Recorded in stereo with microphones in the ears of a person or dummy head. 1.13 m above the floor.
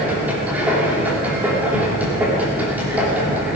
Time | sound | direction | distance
0.0 | a machine running | 10° right (ahead or behind) | 3 m